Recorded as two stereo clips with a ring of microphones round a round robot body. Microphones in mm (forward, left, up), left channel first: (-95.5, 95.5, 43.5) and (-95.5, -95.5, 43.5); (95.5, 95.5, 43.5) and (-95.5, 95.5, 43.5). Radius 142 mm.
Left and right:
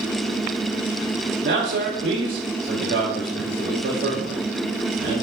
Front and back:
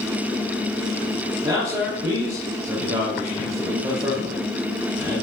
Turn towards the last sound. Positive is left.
turn(degrees=-105)